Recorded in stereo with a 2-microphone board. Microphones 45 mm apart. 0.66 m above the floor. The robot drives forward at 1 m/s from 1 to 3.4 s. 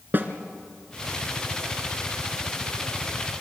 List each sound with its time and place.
0.1 s a snare drum: 45° right (ahead or behind), 1.9 m